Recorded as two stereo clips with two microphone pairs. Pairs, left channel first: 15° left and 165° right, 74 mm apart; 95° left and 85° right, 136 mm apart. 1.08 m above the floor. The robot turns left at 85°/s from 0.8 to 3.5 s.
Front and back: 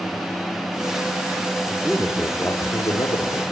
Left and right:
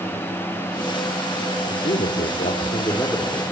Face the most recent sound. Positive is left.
turn(degrees=-15)